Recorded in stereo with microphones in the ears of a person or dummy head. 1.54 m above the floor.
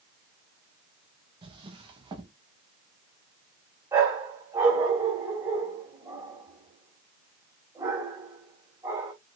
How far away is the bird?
No bird in this recording.